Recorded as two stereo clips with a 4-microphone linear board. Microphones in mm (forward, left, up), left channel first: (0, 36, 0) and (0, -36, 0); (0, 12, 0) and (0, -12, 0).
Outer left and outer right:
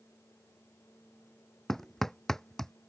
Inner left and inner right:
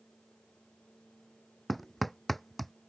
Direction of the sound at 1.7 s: 5° left (ahead or behind).